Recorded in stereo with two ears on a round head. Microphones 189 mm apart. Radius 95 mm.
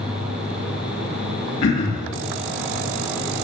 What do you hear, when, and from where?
1.6 s throat clearing: 70° left (ahead or behind), 3 m